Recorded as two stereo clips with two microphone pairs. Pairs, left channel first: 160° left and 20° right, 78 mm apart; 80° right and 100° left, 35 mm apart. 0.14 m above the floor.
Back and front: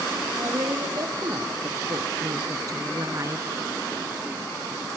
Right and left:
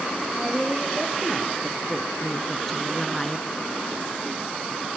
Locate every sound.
0.4 s a woman speaking: 15° left, 6 m; by 3.5 s 10° right, 1.9 m